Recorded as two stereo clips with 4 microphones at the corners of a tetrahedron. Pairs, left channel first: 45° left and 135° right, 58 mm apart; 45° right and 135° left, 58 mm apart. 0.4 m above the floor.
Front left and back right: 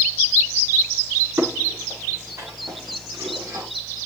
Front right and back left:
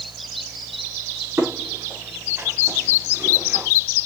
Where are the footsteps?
175° right, 6 m; by 3.7 s 160° right, 6 m.